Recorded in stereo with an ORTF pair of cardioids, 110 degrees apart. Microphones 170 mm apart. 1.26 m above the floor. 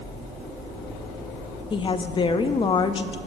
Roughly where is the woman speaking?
Ahead left.